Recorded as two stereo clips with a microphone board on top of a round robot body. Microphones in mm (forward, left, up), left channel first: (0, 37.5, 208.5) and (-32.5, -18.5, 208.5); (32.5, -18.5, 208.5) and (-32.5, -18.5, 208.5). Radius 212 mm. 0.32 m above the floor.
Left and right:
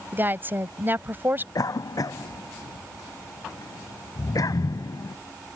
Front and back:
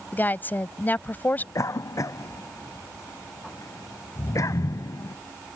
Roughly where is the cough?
Ahead left.